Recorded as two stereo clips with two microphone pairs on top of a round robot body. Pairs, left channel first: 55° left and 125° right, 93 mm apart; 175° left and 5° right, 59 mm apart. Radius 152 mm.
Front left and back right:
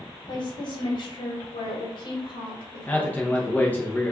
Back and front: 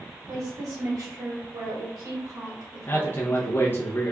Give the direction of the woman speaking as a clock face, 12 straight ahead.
11 o'clock.